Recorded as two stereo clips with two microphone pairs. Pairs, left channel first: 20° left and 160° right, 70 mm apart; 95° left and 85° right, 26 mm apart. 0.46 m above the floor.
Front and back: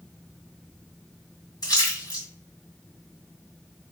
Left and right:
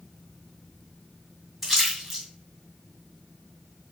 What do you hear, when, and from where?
1.6 s a splash: 5° left, 2.5 m